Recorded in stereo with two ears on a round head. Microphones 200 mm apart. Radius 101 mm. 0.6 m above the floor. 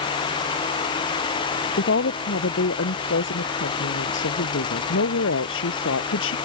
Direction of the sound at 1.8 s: 55° left (ahead or behind).